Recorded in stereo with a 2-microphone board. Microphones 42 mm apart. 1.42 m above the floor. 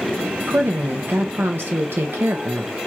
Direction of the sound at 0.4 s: 65° right (ahead or behind).